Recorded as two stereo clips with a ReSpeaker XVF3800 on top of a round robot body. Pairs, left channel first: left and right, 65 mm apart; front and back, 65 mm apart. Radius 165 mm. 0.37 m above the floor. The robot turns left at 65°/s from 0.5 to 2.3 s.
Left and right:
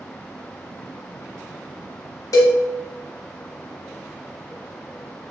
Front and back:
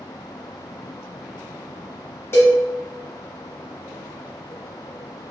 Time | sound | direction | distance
2.3 | a cowbell | 55° left | 0.5 m